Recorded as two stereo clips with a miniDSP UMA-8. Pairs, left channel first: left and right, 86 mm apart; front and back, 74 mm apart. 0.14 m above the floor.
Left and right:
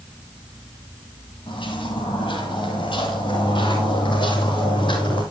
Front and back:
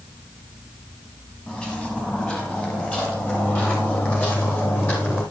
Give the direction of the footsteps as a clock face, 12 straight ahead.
10 o'clock.